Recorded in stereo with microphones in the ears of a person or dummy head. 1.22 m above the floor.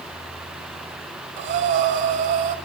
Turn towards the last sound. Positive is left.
turn(degrees=-40)  # may be behind; listen again after turning